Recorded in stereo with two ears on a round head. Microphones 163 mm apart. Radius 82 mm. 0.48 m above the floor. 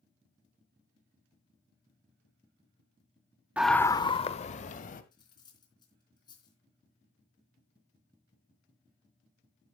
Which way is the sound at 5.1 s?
25° left (ahead or behind).